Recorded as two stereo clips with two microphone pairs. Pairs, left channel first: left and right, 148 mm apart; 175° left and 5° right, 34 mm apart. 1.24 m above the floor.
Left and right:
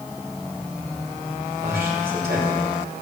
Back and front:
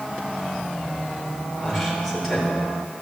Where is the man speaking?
95° right, 5.5 m.